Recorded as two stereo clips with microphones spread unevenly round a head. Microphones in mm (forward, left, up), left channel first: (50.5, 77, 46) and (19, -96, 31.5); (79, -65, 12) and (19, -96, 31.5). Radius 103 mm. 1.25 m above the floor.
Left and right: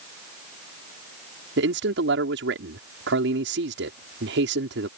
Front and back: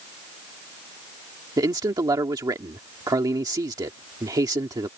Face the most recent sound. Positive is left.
turn(degrees=-130)